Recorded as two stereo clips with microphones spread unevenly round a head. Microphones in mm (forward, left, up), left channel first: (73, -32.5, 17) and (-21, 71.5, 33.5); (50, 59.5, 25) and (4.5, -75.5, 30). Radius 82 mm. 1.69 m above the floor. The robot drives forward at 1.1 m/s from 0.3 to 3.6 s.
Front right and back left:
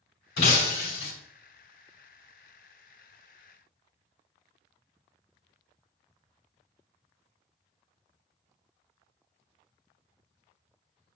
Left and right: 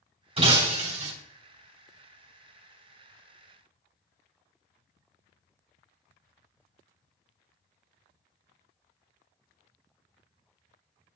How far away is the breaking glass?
About 3.5 m.